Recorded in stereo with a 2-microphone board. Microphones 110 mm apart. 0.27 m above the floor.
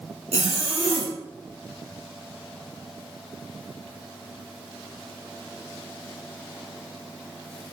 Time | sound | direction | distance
0.3 | a zipper | 80° right | 4 m